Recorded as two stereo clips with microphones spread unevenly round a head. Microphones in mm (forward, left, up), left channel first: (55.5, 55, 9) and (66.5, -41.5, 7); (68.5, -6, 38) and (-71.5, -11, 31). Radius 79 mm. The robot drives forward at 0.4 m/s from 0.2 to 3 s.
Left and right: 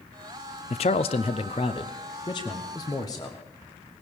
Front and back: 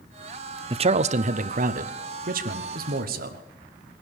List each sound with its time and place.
0.7 s a man speaking: 130° left, 0.5 m; by 3.4 s 165° left, 1.3 m